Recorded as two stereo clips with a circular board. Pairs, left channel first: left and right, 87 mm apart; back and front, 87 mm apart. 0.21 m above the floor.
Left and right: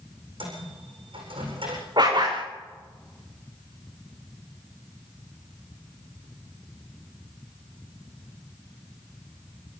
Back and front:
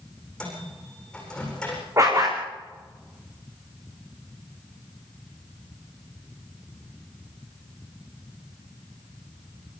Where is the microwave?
100° right, 9 m.